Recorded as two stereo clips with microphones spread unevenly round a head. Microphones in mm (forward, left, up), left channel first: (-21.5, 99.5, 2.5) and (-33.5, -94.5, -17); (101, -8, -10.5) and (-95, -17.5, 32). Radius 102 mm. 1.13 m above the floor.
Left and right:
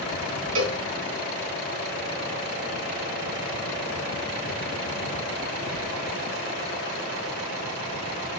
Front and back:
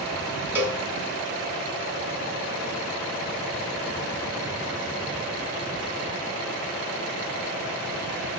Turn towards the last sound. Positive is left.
turn(degrees=-105)